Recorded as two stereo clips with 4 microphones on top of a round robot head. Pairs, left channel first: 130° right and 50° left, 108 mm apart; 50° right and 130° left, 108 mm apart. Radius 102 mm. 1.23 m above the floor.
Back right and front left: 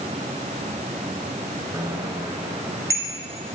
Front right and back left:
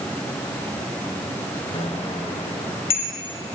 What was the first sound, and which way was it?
A bicycle bell, 15° right.